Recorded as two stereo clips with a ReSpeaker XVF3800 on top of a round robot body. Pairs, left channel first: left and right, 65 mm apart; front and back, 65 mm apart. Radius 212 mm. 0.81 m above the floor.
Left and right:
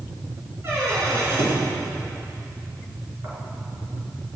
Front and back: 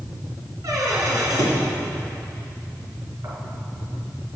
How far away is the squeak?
About 4 m.